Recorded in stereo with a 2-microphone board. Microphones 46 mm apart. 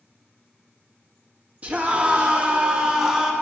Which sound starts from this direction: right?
A scream, at 1.6 s.